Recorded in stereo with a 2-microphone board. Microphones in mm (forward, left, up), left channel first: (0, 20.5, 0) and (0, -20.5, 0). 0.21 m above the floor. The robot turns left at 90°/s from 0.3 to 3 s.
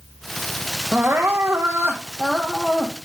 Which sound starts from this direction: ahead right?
Crying, at 0.9 s.